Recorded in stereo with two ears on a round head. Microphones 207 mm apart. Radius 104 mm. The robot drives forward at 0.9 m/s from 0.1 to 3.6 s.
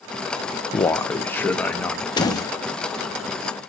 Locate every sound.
0.7 s a man speaking: 15° left (ahead or behind), 0.6 m; by 2.0 s 5° left (ahead or behind), 1.8 m
2.2 s a door slam: 20° left (ahead or behind), 1.2 m; by 2.5 s 15° left (ahead or behind), 1.5 m